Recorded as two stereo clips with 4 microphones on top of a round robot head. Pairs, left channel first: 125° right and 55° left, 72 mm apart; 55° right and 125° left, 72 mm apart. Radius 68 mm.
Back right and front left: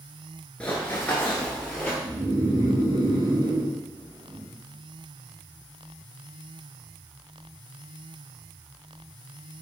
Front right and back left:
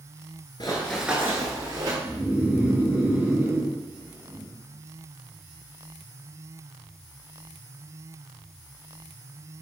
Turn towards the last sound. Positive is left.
turn(degrees=65)